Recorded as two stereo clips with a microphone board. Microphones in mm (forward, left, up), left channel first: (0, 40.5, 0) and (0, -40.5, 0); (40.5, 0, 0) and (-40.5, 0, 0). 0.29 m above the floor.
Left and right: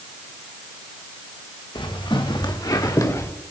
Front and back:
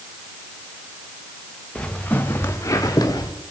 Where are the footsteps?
75° left, 2.5 m; by 3.3 s 35° left, 2 m.